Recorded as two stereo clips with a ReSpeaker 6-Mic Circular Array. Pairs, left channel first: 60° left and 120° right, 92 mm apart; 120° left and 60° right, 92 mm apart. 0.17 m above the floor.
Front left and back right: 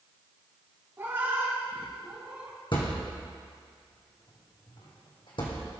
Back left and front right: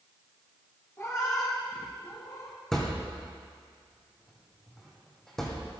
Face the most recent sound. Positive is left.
turn(degrees=35)